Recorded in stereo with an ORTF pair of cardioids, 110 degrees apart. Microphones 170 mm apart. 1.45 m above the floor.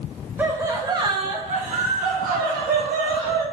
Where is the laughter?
10° right, 1.5 m; by 3.4 s 75° right, 2.5 m.